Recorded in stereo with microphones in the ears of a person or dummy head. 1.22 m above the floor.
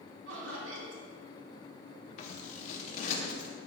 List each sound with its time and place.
0.3 s laughter: 85° right, 2.5 m
2.2 s scissors: 45° left (ahead or behind), 1.2 m